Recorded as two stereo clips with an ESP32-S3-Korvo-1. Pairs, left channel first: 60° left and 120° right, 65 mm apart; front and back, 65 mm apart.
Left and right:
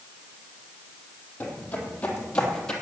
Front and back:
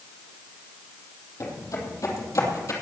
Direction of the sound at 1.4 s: Straight ahead.